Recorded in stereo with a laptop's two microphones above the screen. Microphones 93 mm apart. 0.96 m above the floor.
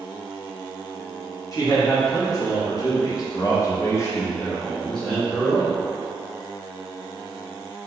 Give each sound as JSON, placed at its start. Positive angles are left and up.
{"t": 1.5, "sound": "a man speaking", "side_deg": 40, "distance_m": 1.6}